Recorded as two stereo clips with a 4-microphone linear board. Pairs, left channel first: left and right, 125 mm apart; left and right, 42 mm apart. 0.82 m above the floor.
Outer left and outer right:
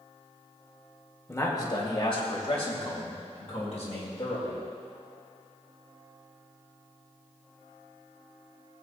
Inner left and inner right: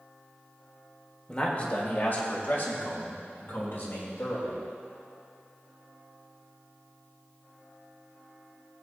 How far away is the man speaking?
About 1.4 m.